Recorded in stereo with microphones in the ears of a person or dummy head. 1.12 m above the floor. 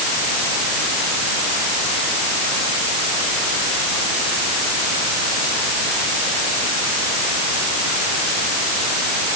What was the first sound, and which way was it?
Only background noise.